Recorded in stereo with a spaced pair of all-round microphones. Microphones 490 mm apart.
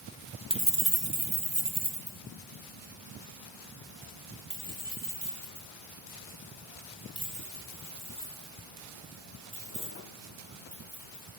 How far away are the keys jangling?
About 0.8 m.